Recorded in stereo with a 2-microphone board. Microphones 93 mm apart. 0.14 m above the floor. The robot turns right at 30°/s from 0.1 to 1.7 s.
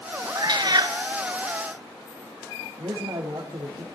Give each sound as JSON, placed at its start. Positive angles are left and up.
{"t": 0.3, "sound": "a cat meowing", "side_deg": -50, "distance_m": 1.2}
{"t": 2.8, "sound": "a man speaking", "side_deg": -45, "distance_m": 4.5}